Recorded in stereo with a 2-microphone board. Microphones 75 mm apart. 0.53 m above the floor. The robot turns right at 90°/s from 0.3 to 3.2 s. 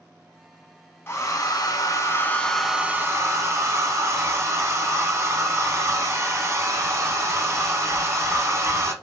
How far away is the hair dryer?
About 0.6 m.